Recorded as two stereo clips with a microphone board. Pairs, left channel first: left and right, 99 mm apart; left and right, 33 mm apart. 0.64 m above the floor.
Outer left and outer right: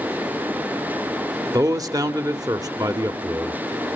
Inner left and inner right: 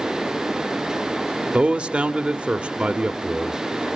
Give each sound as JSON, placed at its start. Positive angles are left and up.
{"t": 1.5, "sound": "a man speaking", "side_deg": -35, "distance_m": 1.1}